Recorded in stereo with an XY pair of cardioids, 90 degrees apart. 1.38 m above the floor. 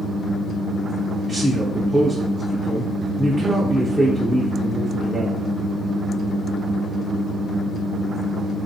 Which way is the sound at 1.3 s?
15° right.